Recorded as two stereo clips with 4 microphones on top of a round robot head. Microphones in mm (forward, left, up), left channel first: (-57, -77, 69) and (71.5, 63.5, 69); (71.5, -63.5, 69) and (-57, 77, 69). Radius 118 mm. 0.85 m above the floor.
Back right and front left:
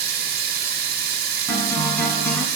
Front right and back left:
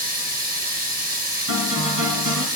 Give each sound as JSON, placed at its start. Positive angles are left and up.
{"t": 0.0, "sound": "running water", "azimuth_deg": 90, "distance_m": 2.5}
{"t": 1.5, "sound": "a guitar", "azimuth_deg": 145, "distance_m": 3.0}